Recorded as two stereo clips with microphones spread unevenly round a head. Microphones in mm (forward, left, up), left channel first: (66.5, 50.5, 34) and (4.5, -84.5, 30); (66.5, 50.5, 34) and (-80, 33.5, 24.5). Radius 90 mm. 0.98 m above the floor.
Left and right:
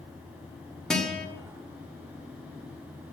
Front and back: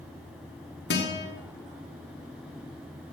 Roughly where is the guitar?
Ahead.